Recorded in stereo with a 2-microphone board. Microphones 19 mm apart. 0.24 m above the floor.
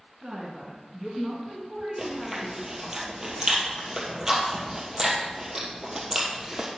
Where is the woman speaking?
30° right (ahead or behind), 2.5 m; by 2.9 s 15° left (ahead or behind), 2.5 m.